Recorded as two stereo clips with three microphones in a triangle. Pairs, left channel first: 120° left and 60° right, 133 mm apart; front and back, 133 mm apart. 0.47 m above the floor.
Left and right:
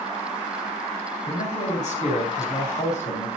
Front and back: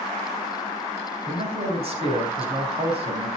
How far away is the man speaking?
About 4 m.